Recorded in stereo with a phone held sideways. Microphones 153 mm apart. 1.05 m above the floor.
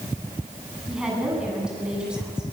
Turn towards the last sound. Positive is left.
turn(degrees=-5)  # may be behind; listen again after turning